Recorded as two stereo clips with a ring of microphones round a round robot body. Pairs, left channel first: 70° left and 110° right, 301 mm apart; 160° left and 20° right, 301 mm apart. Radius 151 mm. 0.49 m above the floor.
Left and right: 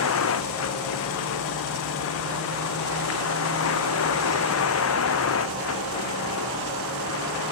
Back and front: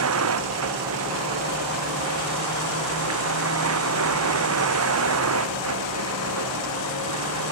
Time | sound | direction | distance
0.0 | a vehicle | 20° left | ?